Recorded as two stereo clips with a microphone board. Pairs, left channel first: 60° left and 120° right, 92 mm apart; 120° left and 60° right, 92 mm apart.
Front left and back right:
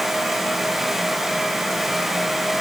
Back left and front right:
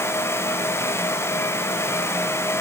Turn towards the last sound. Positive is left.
No sound to turn to.